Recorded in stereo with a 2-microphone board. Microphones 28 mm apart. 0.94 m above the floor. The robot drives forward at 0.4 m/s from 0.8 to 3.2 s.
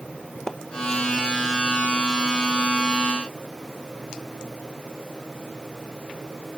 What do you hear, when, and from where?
0.5 s a splash: 20° left (ahead or behind), 0.7 m